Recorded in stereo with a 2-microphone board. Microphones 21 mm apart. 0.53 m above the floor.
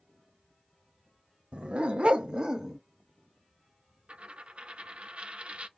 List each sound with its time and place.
1.5 s a dog barking: 65° right (ahead or behind), 0.7 m; by 2.8 s 25° right (ahead or behind), 0.7 m
4.1 s a dropped coin: 75° right (ahead or behind), 0.5 m